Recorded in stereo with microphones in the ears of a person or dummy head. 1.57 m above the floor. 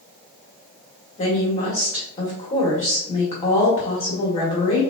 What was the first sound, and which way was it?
A woman speaking, 30° left (ahead or behind).